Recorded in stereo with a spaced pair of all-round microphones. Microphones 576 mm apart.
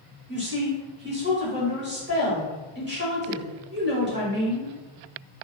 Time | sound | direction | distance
0.3 | a woman speaking | 20° right (ahead or behind) | 1.1 m